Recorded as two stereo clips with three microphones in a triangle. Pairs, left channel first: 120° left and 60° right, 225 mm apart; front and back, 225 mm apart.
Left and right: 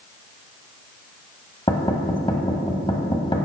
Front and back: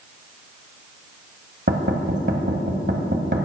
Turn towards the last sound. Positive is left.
turn(degrees=180)